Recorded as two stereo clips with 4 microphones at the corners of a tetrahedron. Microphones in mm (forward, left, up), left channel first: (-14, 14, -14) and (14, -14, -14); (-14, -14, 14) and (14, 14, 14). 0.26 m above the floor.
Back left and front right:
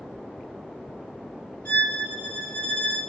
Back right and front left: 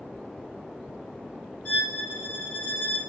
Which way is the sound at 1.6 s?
170° left.